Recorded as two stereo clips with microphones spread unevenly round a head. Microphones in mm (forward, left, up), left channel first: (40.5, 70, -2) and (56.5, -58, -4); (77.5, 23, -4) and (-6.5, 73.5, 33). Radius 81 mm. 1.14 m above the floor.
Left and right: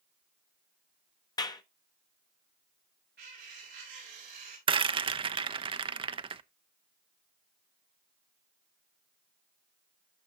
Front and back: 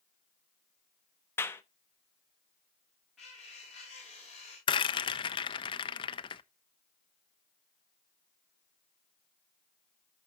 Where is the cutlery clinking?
120° right, 5.5 m.